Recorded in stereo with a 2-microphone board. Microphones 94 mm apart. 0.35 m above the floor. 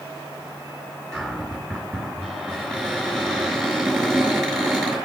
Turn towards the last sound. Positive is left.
turn(degrees=5)  # may be behind; listen again after turning